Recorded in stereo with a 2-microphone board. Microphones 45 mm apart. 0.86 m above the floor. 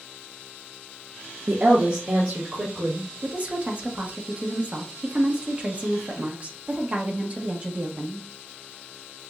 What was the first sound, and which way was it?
A woman speaking, 50° right (ahead or behind).